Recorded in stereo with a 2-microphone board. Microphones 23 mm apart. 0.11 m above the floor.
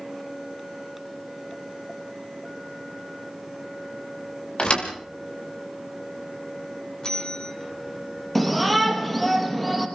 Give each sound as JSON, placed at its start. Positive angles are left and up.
{"t": 4.6, "sound": "a thud", "side_deg": 45, "distance_m": 5.0}
{"t": 7.0, "sound": "a bell", "side_deg": 30, "distance_m": 5.0}
{"t": 8.3, "sound": "a shout", "side_deg": 5, "distance_m": 3.5}